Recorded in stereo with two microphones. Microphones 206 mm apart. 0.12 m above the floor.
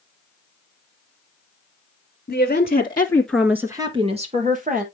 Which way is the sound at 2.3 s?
45° left (ahead or behind).